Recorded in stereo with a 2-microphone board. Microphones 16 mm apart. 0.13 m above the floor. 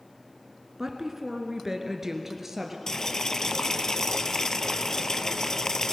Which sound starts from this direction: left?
Boiling, at 2.9 s.